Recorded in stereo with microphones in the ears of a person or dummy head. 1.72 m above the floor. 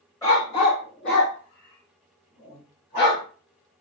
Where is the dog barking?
20° left (ahead or behind), 1.4 m; by 3.2 s 45° left (ahead or behind), 3.5 m.